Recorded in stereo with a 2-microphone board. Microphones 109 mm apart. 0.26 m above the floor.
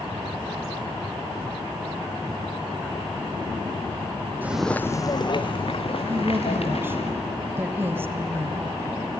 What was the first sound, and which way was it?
Footsteps, 20° right (ahead or behind).